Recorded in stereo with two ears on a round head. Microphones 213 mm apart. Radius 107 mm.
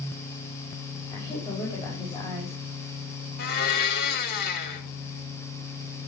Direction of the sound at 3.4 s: 40° left (ahead or behind).